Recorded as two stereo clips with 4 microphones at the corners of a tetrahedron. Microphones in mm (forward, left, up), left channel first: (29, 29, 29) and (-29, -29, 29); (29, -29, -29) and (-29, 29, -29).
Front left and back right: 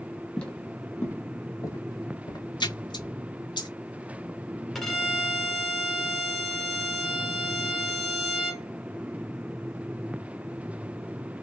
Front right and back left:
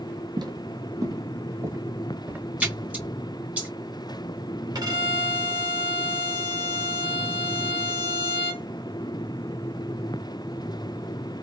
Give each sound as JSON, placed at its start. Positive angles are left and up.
{"t": 0.4, "sound": "footsteps", "azimuth_deg": 120, "distance_m": 1.5}
{"t": 2.6, "sound": "a splash", "azimuth_deg": 65, "distance_m": 1.2}
{"t": 4.8, "sound": "a violin", "azimuth_deg": 135, "distance_m": 1.4}